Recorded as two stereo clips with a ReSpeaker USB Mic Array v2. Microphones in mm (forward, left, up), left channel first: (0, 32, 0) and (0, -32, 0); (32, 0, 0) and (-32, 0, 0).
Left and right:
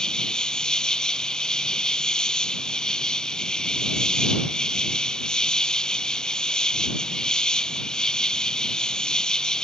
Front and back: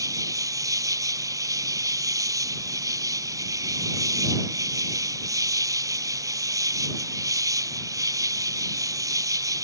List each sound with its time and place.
0.0 s an insect: 165° left